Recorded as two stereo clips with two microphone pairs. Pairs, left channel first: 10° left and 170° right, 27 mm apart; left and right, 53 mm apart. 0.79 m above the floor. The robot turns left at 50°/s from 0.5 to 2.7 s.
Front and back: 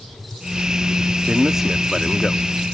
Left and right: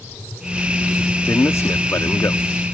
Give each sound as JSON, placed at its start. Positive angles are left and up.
{"t": 1.3, "sound": "a man speaking", "azimuth_deg": 130}